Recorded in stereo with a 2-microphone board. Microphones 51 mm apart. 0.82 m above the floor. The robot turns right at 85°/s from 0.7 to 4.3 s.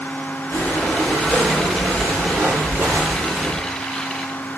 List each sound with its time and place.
0.5 s breathing: 130° left, 1.4 m; by 3.7 s 20° left, 1.4 m